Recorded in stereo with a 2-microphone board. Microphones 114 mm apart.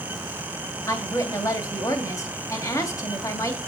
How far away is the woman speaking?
About 2.5 m.